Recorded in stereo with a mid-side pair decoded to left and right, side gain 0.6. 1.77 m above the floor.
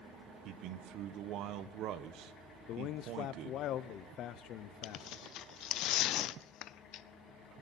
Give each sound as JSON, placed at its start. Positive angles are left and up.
{"t": 0.5, "sound": "a man speaking", "azimuth_deg": -65, "distance_m": 1.1}
{"t": 2.7, "sound": "a man speaking", "azimuth_deg": 60, "distance_m": 0.8}
{"t": 4.8, "sound": "tearing paper", "azimuth_deg": 60, "distance_m": 0.6}